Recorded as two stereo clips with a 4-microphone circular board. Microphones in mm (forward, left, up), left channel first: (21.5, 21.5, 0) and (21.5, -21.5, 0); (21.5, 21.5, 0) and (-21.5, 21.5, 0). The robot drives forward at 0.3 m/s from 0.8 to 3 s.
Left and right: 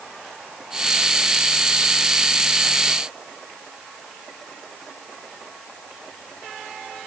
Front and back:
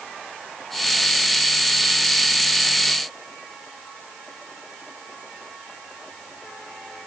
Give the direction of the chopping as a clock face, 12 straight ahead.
I don't hear chopping.